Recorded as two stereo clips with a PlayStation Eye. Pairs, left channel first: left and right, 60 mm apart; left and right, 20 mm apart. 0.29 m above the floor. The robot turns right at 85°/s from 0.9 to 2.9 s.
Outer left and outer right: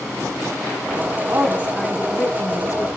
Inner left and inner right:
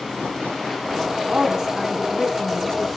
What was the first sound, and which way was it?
A woman speaking, 55° right.